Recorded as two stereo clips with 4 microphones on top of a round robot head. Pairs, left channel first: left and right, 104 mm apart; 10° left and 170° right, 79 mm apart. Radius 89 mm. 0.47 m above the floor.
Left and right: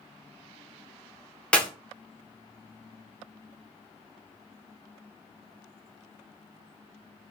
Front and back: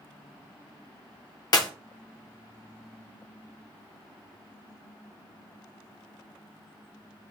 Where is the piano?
No piano in this recording.